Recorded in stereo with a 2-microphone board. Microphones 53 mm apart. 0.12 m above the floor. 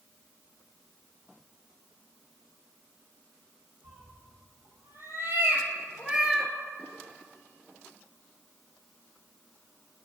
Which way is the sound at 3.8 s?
65° right (ahead or behind).